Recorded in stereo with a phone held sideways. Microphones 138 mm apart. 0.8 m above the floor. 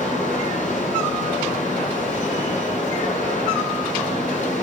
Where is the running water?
65° left (ahead or behind), 7.5 m.